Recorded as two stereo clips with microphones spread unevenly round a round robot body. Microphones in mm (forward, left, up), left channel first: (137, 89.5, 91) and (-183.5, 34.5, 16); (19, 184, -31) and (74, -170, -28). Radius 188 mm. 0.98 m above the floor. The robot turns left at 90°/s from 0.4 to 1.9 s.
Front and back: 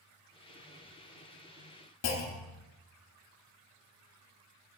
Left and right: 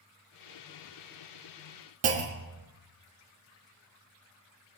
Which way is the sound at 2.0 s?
30° right.